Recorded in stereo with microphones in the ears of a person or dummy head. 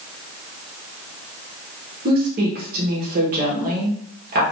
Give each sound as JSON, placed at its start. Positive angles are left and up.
{"t": 2.0, "sound": "a woman speaking", "side_deg": -45, "distance_m": 1.0}